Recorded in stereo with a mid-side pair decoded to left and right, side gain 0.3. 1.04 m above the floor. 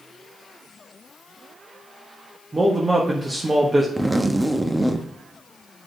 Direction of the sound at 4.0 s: 15° right.